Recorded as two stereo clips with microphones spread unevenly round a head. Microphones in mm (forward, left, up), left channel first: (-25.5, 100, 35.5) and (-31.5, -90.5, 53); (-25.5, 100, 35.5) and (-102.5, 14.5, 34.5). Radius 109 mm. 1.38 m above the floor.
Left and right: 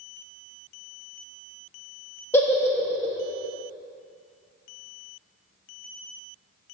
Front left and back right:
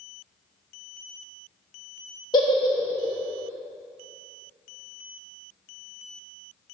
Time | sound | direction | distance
2.3 | a giggle | 10° left | 0.8 m